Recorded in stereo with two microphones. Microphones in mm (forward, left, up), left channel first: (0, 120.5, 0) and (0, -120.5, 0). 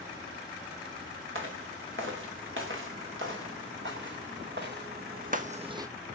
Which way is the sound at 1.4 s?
60° right (ahead or behind).